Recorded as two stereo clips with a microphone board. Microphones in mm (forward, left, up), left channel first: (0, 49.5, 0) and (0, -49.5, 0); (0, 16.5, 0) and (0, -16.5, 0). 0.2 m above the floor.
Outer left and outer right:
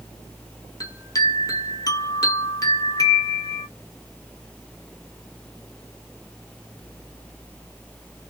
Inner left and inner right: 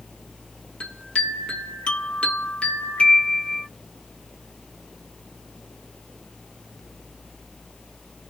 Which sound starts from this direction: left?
A chime, at 0.8 s.